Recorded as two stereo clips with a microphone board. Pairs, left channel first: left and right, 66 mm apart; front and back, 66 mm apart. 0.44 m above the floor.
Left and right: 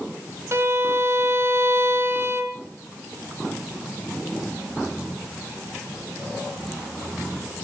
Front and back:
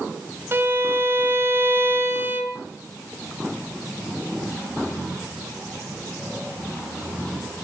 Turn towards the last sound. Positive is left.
turn(degrees=-130)